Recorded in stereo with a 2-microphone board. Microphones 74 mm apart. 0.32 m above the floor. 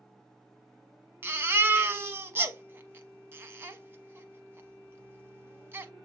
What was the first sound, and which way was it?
A baby crying, 30° right (ahead or behind).